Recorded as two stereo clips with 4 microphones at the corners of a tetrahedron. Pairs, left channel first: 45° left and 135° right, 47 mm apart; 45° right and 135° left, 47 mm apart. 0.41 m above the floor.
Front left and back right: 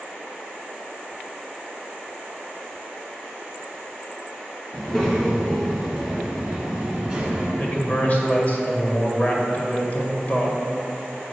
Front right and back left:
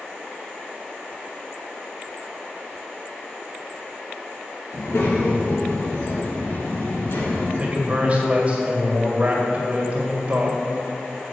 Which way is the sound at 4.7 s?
35° right.